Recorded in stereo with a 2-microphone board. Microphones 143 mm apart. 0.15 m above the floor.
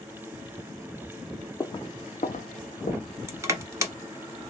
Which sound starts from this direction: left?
Footsteps, at 1.6 s.